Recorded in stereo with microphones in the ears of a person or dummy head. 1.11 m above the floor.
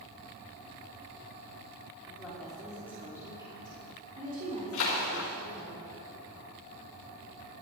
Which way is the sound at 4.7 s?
65° left (ahead or behind).